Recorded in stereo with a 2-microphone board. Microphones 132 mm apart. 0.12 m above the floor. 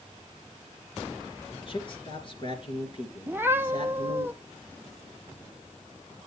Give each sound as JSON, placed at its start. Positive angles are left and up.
{"t": 1.5, "sound": "a man speaking", "side_deg": 40, "distance_m": 2.5}
{"t": 3.3, "sound": "a cat meowing", "side_deg": -15, "distance_m": 0.6}